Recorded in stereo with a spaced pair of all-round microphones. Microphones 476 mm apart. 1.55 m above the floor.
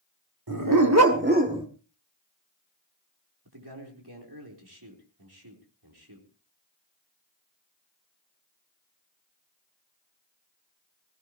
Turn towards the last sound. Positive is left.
turn(degrees=-50)  # may be behind; listen again after turning